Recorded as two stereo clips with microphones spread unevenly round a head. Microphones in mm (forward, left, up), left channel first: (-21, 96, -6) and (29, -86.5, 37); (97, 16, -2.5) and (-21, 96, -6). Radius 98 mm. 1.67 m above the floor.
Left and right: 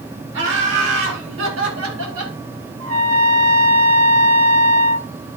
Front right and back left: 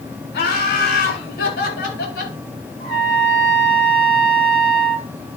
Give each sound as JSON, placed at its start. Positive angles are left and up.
{"t": 0.3, "sound": "laughter", "azimuth_deg": -45, "distance_m": 8.0}
{"t": 2.8, "sound": "a trumpet", "azimuth_deg": -95, "distance_m": 3.0}